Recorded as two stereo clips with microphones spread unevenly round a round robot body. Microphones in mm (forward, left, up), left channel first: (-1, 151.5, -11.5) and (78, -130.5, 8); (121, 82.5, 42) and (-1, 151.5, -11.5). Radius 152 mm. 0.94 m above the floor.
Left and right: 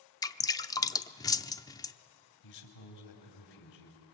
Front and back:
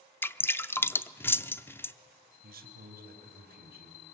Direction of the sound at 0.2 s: 25° left.